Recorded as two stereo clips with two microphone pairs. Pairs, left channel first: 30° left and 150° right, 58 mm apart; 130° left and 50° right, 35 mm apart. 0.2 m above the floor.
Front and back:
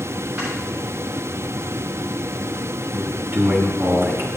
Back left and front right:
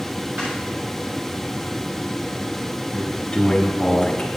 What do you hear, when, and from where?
0.4 s snoring: 85° right, 3.5 m
2.9 s a man speaking: 165° right, 1.9 m